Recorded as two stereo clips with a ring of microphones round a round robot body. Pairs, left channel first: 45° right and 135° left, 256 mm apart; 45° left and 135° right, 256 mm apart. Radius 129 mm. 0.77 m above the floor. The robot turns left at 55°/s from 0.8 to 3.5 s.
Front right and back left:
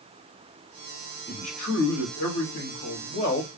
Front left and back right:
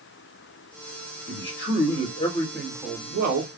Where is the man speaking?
30° left, 2.5 m; by 3.5 s 95° right, 2.5 m.